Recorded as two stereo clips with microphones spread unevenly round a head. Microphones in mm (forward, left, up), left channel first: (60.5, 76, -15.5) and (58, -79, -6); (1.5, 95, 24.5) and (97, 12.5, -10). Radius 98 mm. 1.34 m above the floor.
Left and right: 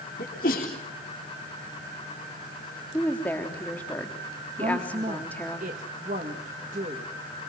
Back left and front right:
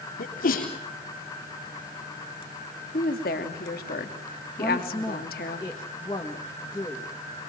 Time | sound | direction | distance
0.2 | a sneeze | 140° left | 4 m
2.9 | a woman speaking | 170° left | 3 m
4.6 | a woman speaking | 150° right | 2 m